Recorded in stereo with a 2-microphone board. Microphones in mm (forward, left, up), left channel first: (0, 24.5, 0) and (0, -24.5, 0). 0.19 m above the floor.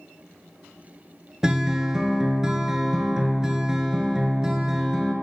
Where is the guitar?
15° right (ahead or behind), 0.7 m.